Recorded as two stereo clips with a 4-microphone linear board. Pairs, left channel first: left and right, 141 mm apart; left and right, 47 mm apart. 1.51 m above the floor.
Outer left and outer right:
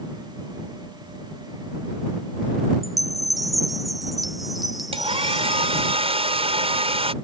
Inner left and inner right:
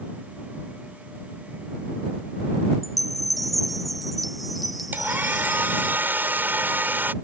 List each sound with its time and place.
2.8 s a chime: centre (ahead or behind)
4.9 s a hair dryer: 45° right (ahead or behind)